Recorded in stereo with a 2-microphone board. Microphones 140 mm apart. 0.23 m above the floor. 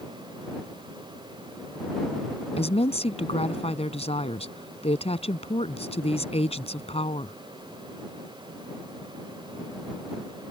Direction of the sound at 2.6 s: 50° left (ahead or behind).